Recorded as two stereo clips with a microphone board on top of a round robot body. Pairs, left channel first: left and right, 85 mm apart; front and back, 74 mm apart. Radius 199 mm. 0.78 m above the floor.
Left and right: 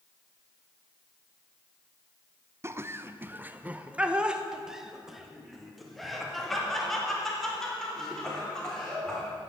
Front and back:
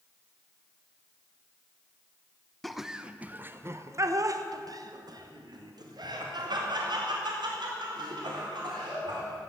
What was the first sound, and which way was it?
Laughter, 85° right.